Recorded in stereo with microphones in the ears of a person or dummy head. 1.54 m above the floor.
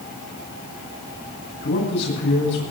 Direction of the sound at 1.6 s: 65° left (ahead or behind).